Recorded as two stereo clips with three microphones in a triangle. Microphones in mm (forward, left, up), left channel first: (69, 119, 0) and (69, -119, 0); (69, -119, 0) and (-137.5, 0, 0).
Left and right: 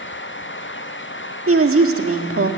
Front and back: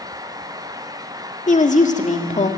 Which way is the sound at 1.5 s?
85° right.